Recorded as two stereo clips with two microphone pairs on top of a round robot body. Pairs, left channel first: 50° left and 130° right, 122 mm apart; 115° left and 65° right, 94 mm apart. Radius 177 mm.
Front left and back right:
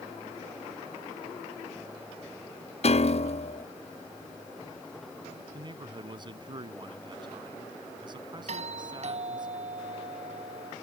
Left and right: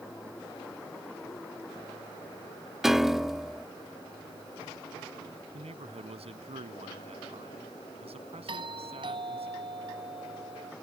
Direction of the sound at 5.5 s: 80° right.